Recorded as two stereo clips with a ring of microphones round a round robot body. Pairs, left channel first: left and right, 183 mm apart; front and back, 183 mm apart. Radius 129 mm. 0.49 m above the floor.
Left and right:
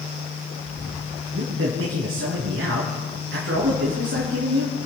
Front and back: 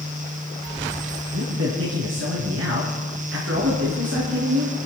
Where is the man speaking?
140° right, 5 m.